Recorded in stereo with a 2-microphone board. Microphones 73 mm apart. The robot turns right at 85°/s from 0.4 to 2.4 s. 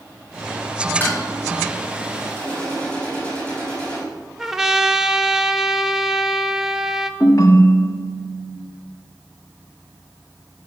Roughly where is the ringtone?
Left.